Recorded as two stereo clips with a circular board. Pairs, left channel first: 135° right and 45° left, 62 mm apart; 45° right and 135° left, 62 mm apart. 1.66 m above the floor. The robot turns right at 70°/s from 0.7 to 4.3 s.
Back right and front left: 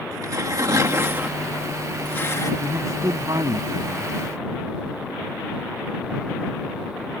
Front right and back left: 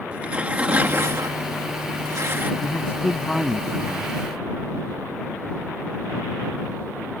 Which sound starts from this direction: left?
Tearing paper, at 0.1 s.